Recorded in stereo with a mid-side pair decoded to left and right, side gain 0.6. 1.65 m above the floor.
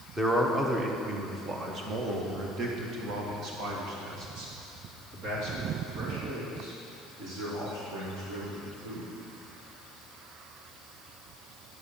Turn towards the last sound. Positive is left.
turn(degrees=-75)